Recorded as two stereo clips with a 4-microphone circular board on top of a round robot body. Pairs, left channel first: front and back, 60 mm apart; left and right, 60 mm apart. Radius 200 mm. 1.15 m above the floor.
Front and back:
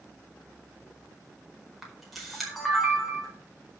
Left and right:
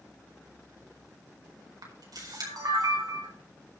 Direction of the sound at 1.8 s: 90° right.